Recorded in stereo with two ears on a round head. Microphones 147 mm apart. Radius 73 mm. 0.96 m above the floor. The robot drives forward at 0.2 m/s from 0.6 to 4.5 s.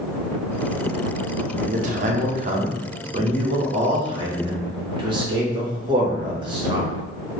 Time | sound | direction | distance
1.6 | a man speaking | 50° right (ahead or behind) | 0.7 m